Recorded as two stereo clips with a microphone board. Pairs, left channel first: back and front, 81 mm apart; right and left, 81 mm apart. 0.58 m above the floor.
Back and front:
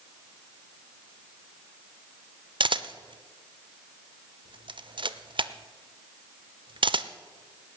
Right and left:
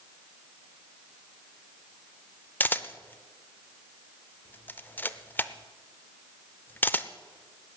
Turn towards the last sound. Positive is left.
turn(degrees=-20)